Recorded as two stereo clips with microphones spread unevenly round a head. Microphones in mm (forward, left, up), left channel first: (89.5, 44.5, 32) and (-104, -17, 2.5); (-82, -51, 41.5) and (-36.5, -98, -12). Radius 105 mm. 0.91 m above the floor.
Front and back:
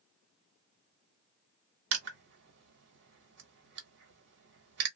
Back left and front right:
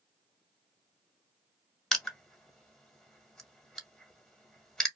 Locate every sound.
1.9 s crushing: 130° right, 1.2 m